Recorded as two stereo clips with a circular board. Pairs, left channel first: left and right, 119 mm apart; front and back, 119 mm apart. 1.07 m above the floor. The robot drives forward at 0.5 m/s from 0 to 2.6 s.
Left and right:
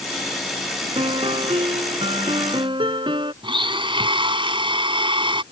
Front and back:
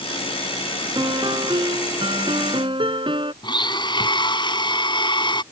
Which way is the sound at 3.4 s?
45° right.